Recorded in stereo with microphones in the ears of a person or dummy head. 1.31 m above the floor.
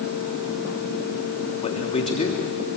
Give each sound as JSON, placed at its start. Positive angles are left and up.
{"t": 1.6, "sound": "a man speaking", "side_deg": 30, "distance_m": 3.0}